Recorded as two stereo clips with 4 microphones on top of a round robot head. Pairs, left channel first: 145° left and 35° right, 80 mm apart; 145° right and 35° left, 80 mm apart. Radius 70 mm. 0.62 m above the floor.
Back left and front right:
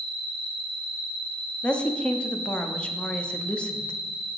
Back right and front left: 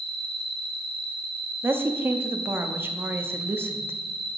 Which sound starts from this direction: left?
A woman speaking, at 1.6 s.